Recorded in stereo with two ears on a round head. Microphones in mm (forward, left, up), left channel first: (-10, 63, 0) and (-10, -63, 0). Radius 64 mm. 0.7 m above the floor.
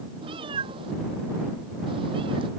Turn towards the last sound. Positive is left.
turn(degrees=-40)  # may be behind; listen again after turning